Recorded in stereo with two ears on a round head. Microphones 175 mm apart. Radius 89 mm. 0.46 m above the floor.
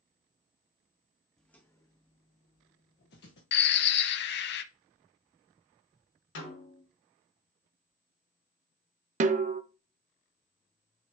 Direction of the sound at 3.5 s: 60° left (ahead or behind).